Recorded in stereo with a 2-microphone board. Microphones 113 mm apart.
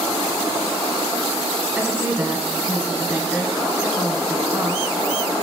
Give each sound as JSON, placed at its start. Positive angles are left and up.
{"t": 1.8, "sound": "a woman speaking", "side_deg": -15, "distance_m": 1.2}